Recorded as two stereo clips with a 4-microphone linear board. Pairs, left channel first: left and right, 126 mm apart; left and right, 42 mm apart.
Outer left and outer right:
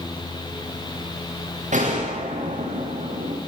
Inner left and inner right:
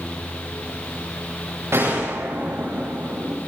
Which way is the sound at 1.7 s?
80° right.